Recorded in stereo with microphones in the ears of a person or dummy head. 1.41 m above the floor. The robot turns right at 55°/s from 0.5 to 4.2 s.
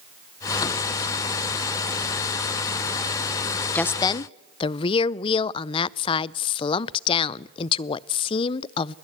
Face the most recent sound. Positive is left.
turn(degrees=30)  # may be behind; listen again after turning